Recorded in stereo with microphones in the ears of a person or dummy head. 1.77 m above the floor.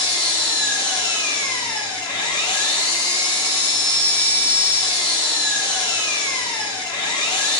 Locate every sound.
0.0 s an engine running: 20° left (ahead or behind), 0.8 m